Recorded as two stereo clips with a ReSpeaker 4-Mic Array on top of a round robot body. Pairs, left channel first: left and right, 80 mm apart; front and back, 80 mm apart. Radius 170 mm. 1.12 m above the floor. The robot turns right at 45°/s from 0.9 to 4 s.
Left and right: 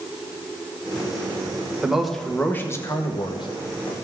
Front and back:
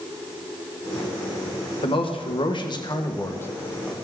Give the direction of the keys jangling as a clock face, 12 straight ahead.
I don't hear keys jangling.